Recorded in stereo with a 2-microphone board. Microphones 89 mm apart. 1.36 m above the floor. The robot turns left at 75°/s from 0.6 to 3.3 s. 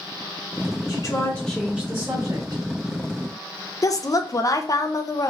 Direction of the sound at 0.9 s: 50° left.